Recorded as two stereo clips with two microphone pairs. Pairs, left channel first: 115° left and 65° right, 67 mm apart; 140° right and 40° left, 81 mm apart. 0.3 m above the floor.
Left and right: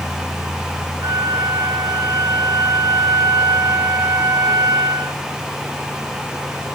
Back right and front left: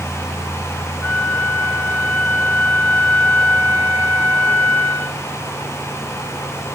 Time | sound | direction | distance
1.0 | a flute | 75° right | 2.5 m